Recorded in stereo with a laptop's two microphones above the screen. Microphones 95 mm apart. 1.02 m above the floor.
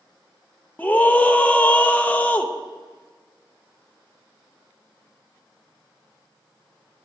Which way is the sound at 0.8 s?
15° left (ahead or behind).